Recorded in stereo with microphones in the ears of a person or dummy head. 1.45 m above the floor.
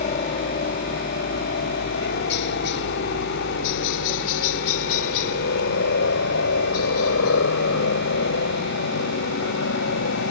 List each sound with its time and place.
0.0 s a helicopter: 35° left (ahead or behind); by 10.3 s 80° left